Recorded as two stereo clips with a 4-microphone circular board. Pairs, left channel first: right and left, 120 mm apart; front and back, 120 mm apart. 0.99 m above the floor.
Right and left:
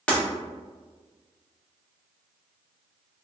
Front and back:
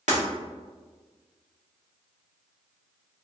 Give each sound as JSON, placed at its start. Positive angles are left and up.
{"t": 0.1, "sound": "breaking glass", "azimuth_deg": -170, "distance_m": 1.0}